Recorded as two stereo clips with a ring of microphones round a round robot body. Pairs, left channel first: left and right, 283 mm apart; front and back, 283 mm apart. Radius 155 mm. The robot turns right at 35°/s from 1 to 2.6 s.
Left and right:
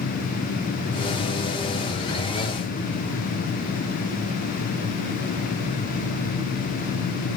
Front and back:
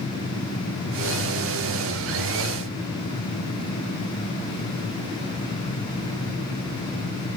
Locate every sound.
Only background noise.